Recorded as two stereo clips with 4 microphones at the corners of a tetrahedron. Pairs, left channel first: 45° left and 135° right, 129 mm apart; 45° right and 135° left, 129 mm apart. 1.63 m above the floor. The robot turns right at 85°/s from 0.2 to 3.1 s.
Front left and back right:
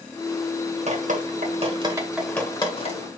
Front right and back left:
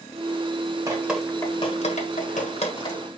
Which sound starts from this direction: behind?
Dripping, at 0.9 s.